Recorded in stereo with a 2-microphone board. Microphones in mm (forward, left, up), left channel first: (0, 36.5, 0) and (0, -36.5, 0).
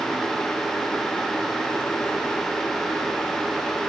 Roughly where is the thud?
I don't hear a thud.